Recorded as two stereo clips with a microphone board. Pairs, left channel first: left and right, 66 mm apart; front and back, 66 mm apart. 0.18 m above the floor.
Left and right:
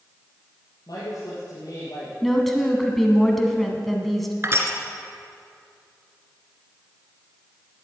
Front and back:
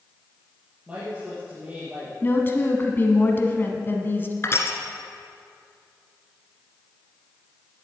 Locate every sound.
0.9 s a woman speaking: 110° left, 5.5 m
2.2 s a woman speaking: 5° left, 1.5 m
4.4 s crushing: 45° right, 1.7 m